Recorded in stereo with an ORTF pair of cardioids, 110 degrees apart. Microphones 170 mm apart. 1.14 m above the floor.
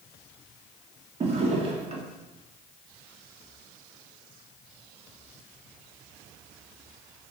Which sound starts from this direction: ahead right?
A drawer, at 1.2 s.